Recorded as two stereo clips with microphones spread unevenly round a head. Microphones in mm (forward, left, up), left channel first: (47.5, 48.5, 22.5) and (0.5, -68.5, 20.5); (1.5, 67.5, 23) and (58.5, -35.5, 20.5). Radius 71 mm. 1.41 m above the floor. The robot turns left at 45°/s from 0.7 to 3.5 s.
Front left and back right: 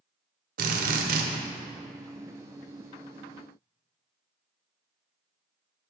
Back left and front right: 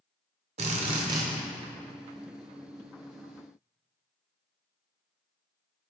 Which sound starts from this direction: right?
A drill, at 0.6 s.